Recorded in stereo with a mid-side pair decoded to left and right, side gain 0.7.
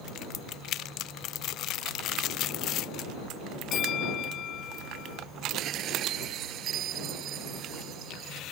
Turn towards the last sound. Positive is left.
turn(degrees=-50)